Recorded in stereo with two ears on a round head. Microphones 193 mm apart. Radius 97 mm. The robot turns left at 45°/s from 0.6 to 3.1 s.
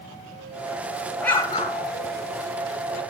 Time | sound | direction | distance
1.2 | an explosion | 5° left (ahead or behind) | 1.8 m